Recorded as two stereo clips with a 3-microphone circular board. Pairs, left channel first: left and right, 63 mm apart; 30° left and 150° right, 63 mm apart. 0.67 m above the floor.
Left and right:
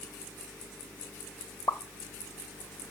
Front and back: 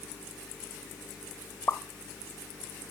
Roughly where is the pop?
Left.